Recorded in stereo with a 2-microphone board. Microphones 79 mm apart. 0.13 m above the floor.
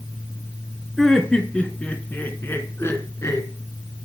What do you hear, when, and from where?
1.0 s laughter: 5° left (ahead or behind), 2 m; by 3.5 s 40° left (ahead or behind), 2 m